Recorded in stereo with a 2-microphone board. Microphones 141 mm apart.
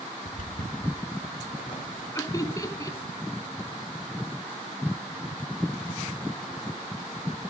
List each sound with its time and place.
0.2 s footsteps: 75° left (ahead or behind), 3 m; by 2.0 s 70° left (ahead or behind), 2.5 m
2.1 s laughter: 25° left (ahead or behind), 1.2 m